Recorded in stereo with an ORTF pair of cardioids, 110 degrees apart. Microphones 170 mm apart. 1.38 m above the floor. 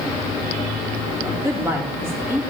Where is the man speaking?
15° right, 3 m.